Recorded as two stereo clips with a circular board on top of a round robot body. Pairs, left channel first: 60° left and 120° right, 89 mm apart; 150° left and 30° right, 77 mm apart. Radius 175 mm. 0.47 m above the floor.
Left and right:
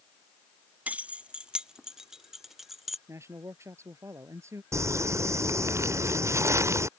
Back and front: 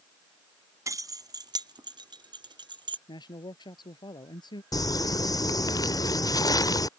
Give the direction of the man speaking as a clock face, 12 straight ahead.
6 o'clock.